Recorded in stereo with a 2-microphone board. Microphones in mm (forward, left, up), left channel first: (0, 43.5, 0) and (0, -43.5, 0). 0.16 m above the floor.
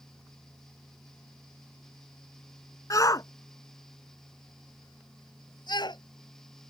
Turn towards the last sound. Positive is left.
turn(degrees=60)  # may be behind; listen again after turning